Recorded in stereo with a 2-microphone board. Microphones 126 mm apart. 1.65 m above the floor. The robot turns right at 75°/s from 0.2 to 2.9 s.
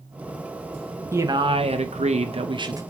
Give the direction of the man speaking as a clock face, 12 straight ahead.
5 o'clock.